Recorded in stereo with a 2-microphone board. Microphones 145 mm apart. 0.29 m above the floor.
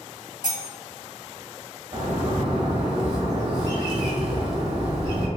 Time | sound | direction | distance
0.4 | cutlery clinking | 30° right (ahead or behind) | 1.4 m
1.9 | a bird | 40° right (ahead or behind) | 1.2 m